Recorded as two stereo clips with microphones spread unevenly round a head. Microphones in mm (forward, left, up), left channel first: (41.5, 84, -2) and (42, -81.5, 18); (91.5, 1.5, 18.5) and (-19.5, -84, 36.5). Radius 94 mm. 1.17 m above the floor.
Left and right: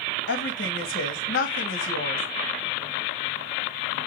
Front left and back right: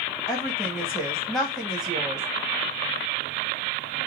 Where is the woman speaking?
125° left, 1.4 m.